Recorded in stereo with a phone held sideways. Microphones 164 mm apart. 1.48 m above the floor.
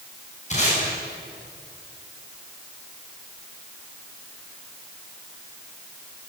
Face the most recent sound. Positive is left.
turn(degrees=45)  # may be behind; listen again after turning